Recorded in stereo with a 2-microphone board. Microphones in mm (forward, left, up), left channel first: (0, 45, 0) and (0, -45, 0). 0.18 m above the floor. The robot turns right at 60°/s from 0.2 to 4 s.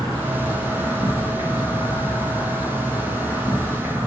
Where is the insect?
35° right, 1.4 m; by 4.1 s 165° right, 1.4 m.